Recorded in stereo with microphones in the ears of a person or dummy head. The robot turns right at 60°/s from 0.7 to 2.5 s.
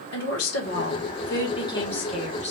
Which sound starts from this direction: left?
A woman speaking, at 0.1 s.